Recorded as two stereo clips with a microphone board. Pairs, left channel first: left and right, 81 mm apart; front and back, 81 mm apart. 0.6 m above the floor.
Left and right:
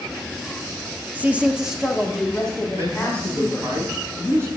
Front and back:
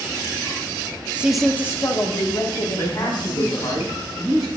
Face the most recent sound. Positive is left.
turn(degrees=-35)